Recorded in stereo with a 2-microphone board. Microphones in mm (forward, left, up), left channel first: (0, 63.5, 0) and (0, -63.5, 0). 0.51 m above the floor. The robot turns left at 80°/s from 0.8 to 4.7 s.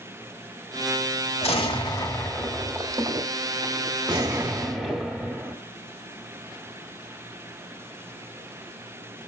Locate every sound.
1.4 s an explosion: 80° left, 1.5 m; by 5.6 s straight behind, 1.5 m